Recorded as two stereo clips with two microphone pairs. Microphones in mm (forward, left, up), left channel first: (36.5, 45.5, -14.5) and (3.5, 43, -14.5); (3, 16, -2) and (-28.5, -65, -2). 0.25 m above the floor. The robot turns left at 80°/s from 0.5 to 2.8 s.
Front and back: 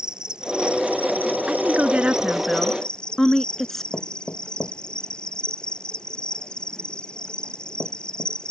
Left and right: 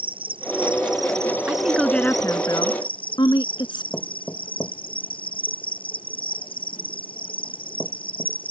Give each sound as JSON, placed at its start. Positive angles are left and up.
{"t": 0.0, "sound": "an insect", "azimuth_deg": -115}
{"t": 1.5, "sound": "a woman speaking", "azimuth_deg": -175}
{"t": 3.9, "sound": "knocking", "azimuth_deg": 10}